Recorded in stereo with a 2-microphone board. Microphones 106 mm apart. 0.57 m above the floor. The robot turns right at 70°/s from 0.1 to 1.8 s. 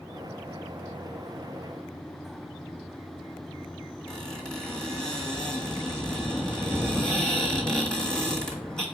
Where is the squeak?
5° left (ahead or behind), 1.4 m.